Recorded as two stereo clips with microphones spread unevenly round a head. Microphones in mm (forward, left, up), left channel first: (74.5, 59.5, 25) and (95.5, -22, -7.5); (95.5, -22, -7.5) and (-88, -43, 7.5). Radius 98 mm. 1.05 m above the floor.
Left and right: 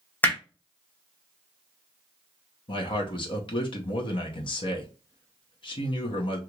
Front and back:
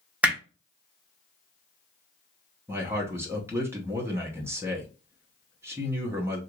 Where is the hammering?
110° left, 0.7 m.